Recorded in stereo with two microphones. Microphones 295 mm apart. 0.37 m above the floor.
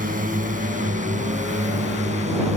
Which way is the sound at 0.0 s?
25° right (ahead or behind).